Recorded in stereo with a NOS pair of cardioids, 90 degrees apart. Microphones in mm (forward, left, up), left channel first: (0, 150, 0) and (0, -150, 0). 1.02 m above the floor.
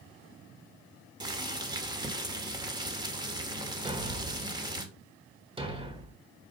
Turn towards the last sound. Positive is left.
turn(degrees=-20)